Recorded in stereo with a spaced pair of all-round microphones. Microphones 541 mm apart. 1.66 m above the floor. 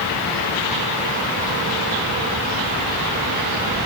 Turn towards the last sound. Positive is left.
No sound to turn to.